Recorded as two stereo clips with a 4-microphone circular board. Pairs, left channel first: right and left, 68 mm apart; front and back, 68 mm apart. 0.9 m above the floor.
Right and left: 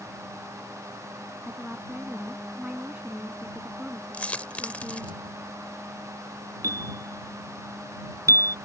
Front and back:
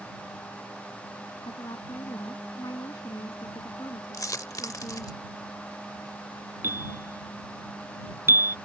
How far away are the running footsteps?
No running footsteps in this recording.